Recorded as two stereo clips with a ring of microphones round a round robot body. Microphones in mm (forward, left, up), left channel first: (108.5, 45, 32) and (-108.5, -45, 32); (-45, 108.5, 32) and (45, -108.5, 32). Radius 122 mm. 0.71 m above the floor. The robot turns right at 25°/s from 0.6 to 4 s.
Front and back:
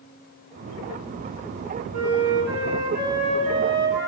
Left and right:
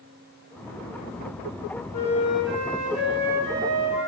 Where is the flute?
135° right, 4 m; by 4.1 s 80° right, 4 m.